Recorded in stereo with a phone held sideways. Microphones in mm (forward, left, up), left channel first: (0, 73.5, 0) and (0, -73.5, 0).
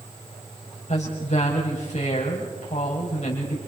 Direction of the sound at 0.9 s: 55° left (ahead or behind).